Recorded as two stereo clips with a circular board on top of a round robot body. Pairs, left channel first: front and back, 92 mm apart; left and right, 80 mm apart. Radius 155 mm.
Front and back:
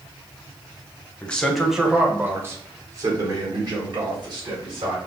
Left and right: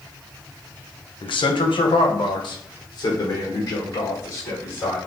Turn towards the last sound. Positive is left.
turn(degrees=145)